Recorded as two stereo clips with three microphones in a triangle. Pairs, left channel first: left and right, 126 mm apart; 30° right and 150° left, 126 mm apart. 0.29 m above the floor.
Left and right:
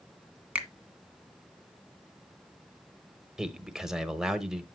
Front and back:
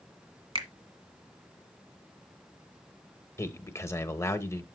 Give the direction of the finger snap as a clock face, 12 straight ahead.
6 o'clock.